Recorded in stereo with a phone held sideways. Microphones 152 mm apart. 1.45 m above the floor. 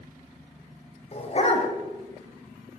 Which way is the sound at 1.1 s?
45° left (ahead or behind).